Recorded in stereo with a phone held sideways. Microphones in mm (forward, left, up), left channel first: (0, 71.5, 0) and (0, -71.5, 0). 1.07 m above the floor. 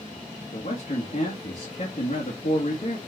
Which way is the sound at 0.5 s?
60° left (ahead or behind).